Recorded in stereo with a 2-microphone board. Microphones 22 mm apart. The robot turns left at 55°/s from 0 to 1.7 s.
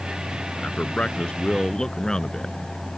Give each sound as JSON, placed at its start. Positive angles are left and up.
{"t": 0.6, "sound": "a man speaking", "azimuth_deg": 100}